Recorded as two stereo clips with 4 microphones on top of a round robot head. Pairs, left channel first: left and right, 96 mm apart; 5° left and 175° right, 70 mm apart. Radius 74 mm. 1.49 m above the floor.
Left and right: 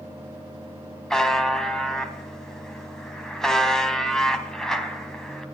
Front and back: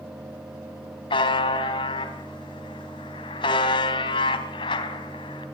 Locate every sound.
1.1 s a buzzer: 5° left, 3 m